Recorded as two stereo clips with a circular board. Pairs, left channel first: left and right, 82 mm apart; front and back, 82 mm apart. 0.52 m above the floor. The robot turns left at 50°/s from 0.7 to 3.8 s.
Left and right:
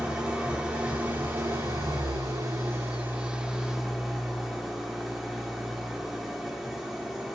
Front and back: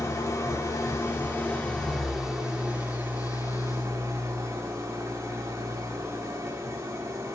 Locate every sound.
0.0 s an engine running: 20° right, 1.2 m; by 7.3 s 175° right, 1.2 m